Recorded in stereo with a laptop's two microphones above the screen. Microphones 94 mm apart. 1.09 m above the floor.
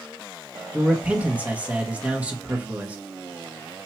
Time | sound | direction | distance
0.7 | a man speaking | 15° right (ahead or behind) | 1.0 m